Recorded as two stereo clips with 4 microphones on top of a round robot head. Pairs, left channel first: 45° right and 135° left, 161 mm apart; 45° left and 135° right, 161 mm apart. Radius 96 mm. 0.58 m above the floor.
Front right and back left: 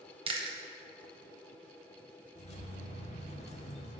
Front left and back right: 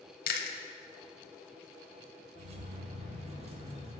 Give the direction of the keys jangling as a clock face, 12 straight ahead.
3 o'clock.